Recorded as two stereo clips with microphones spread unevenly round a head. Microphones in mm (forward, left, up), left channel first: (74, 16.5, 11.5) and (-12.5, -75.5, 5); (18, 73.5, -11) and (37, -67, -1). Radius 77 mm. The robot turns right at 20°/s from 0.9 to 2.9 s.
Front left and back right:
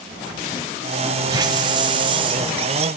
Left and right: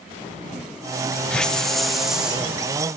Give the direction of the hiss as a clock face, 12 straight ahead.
6 o'clock.